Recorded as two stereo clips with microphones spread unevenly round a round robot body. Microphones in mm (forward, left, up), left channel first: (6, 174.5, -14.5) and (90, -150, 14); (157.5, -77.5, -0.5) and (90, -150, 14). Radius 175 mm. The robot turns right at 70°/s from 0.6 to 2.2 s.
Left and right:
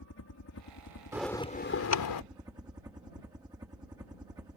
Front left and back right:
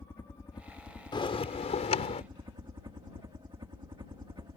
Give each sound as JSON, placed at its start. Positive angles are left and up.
{"t": 0.0, "sound": "a helicopter", "azimuth_deg": 95}
{"t": 1.1, "sound": "a bell", "azimuth_deg": 5}